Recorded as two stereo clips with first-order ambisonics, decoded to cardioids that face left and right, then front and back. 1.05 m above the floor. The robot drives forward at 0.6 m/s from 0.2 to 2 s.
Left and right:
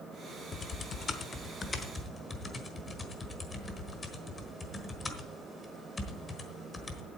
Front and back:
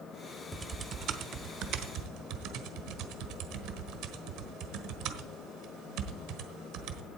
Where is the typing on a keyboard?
120° left, 0.7 m; by 7.0 s 165° left, 1.3 m.